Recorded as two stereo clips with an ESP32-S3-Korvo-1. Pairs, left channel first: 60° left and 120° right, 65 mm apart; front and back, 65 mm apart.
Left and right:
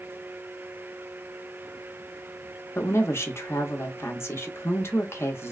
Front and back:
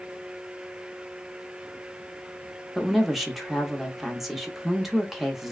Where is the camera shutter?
No camera shutter in this recording.